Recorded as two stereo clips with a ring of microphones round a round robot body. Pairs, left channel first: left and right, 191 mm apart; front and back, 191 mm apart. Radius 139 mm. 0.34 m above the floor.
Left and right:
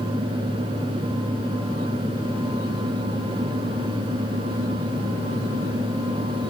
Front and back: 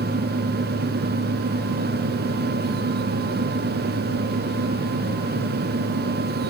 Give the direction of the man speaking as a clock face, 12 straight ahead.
No man speaking in this recording.